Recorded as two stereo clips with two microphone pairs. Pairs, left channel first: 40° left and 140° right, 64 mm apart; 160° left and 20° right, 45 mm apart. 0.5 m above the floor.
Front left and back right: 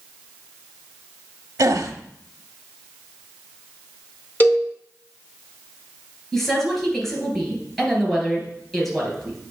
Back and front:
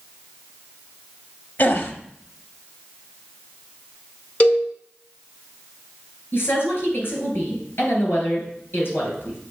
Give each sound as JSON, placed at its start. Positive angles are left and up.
{"t": 1.6, "sound": "a gasp", "azimuth_deg": -165, "distance_m": 0.8}
{"t": 4.4, "sound": "a cowbell", "azimuth_deg": 100, "distance_m": 1.4}
{"t": 6.3, "sound": "a woman speaking", "azimuth_deg": 125, "distance_m": 3.0}